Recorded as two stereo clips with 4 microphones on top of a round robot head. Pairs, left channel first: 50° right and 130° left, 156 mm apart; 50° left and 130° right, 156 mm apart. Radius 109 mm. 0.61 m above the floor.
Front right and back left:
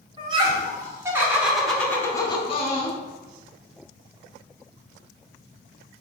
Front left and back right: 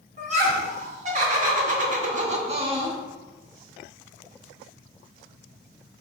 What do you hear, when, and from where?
0.2 s laughter: 170° right, 1.4 m; by 3.0 s 70° right, 0.8 m